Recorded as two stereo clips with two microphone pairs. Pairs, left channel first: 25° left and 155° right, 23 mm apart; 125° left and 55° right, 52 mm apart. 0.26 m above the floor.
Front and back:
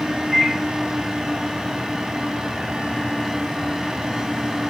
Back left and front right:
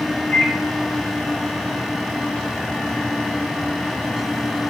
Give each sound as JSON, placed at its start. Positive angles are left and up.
{"t": 0.3, "sound": "a microwave", "azimuth_deg": 150, "distance_m": 1.8}